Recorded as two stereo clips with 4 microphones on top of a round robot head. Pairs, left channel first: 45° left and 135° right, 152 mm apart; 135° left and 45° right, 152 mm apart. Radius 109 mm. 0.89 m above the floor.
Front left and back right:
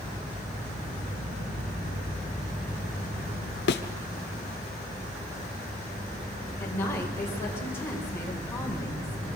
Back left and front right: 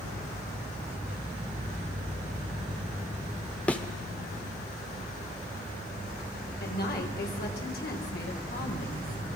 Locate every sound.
3.7 s a thud: 55° left, 1.0 m
6.6 s a woman speaking: 120° left, 4 m